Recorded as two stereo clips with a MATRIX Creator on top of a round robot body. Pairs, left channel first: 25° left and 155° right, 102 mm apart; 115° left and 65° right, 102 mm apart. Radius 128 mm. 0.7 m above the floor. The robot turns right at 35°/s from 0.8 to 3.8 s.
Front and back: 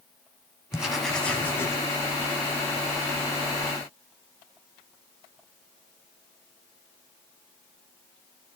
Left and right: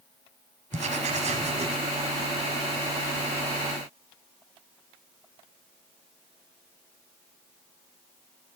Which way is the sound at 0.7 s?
70° right.